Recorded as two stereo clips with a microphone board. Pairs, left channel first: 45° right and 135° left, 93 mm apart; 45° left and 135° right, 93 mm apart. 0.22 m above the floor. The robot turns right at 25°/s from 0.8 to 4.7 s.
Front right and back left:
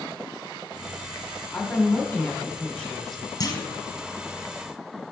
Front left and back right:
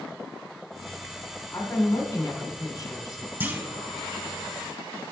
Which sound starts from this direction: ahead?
A woman speaking, at 1.5 s.